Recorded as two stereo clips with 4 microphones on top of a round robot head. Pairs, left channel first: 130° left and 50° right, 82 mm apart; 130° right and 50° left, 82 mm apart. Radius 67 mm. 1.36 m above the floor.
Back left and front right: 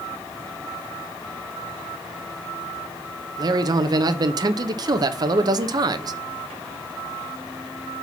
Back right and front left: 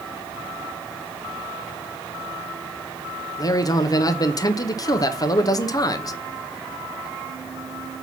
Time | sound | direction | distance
3.4 | a man speaking | 85° right | 0.8 m